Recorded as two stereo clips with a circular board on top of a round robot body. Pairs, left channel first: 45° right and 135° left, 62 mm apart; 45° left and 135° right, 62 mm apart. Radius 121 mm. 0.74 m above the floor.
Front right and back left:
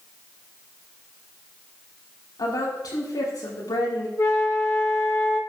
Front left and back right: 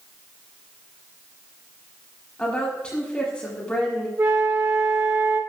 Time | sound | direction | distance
2.4 | a woman speaking | 30° right | 7.5 m
4.2 | a flute | 85° right | 2.5 m